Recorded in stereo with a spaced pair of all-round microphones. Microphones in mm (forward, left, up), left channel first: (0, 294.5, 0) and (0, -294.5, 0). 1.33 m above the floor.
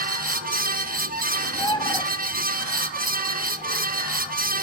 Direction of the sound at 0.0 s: 15° right (ahead or behind).